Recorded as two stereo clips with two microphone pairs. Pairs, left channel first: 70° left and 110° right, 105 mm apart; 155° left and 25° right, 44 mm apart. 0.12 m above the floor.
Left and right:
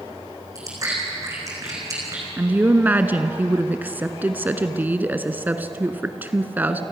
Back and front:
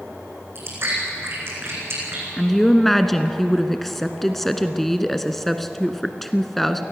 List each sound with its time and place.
0.6 s chewing: 55° right, 5.5 m
2.4 s a woman speaking: 130° right, 1.0 m